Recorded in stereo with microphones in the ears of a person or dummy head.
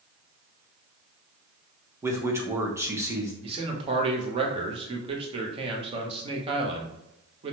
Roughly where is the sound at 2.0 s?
Centre.